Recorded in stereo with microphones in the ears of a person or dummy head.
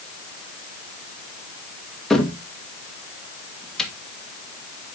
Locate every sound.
2.1 s a cupboard door: 5° left (ahead or behind), 1.5 m